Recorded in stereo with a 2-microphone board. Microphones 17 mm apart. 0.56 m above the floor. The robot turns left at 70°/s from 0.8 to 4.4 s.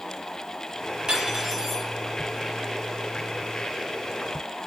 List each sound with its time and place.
1.1 s cutlery clinking: 120° right, 7 m; by 1.9 s 175° right, 7 m